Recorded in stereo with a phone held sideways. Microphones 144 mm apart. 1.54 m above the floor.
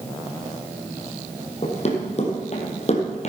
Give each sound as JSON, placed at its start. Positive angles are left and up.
{"t": 1.6, "sound": "running footsteps", "side_deg": 45, "distance_m": 3.0}